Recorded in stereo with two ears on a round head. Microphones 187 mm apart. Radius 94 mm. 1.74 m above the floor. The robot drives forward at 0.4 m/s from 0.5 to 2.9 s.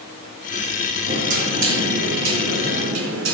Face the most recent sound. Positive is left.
turn(degrees=-70)  # may be behind; listen again after turning